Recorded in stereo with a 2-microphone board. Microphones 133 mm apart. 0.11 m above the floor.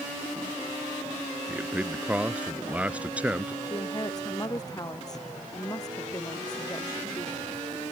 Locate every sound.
1.5 s a man speaking: 10° right (ahead or behind)
3.6 s a woman speaking: 25° left (ahead or behind)